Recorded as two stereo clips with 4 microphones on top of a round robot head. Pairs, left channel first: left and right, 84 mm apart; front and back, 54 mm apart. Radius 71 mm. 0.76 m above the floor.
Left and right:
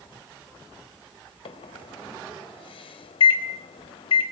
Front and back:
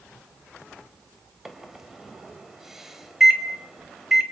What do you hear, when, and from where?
1.4 s a microwave: 95° left, 4 m